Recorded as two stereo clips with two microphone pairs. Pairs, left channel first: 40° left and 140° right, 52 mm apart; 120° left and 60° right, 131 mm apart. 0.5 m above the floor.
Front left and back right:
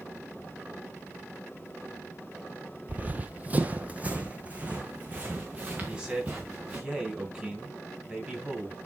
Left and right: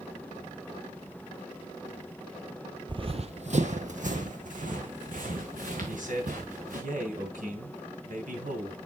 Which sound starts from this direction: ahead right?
A man speaking, at 5.8 s.